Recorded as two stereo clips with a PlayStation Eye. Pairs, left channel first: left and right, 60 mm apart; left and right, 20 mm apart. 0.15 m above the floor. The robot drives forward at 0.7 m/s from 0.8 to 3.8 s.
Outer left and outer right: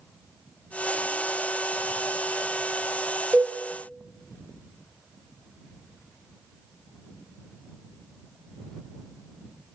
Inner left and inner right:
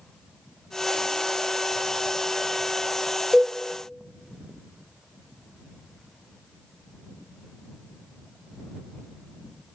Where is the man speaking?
I don't hear a man speaking.